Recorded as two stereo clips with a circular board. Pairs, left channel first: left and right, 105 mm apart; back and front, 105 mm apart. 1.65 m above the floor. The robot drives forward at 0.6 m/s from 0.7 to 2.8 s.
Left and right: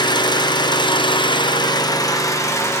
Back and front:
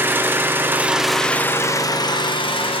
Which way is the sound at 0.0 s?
65° left.